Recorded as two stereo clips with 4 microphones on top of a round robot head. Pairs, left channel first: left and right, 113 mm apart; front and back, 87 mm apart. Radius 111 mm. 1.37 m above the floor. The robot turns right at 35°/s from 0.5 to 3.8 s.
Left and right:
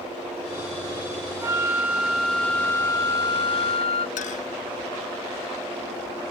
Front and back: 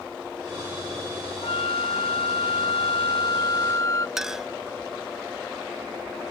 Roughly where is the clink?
Left.